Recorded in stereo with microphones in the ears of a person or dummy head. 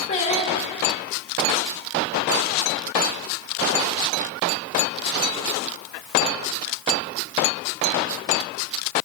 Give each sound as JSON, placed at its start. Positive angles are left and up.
{"t": 0.1, "sound": "singing", "side_deg": 35, "distance_m": 0.9}